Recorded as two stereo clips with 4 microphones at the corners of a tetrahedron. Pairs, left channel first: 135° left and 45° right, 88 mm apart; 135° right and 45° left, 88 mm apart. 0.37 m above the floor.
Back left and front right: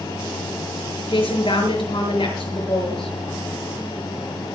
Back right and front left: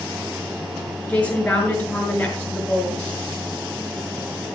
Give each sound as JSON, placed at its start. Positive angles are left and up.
{"t": 1.1, "sound": "a woman speaking", "azimuth_deg": 150, "distance_m": 6.0}